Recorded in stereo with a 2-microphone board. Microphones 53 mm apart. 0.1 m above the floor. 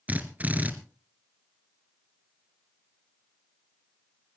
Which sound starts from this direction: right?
A drill, at 0.1 s.